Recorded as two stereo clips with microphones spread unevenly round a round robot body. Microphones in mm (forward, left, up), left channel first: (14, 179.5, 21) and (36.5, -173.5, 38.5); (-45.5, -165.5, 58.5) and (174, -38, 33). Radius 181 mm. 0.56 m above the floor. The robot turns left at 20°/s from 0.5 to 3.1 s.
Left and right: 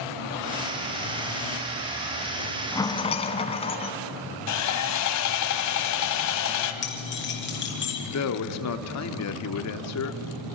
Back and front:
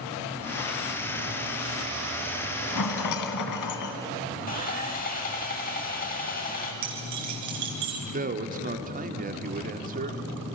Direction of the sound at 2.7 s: 175° left.